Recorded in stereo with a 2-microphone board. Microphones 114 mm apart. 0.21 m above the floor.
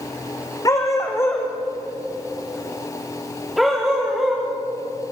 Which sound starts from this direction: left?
A dog barking, at 0.7 s.